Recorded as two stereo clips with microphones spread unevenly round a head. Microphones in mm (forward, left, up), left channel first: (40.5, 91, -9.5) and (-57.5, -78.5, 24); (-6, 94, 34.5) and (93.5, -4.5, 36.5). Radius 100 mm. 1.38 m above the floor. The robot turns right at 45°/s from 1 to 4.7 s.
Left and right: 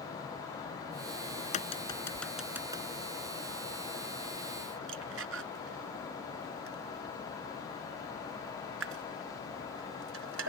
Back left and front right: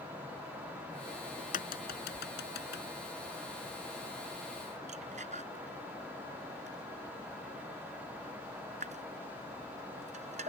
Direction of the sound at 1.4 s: 110° left.